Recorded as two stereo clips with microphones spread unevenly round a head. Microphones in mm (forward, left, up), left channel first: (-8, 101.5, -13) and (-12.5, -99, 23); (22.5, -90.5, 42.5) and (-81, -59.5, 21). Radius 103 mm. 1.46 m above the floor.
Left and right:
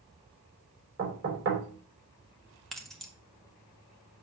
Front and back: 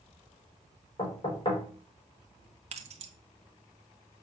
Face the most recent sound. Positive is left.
turn(degrees=180)